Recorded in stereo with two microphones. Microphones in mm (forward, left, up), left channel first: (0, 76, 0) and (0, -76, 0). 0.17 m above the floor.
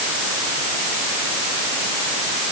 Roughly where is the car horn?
I don't hear a car horn.